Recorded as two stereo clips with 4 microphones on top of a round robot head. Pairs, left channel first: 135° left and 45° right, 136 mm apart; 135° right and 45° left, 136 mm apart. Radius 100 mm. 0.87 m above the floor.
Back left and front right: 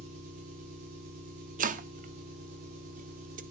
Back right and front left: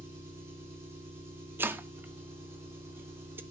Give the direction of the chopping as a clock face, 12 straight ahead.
1 o'clock.